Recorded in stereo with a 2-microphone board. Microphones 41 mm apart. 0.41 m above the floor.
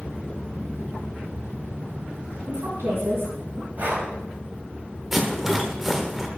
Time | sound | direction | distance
2.5 | a woman speaking | 70° right (ahead or behind) | 3.5 m
3.8 | breathing | 50° right (ahead or behind) | 2 m
5.1 | a rattle | 5° right (ahead or behind) | 0.9 m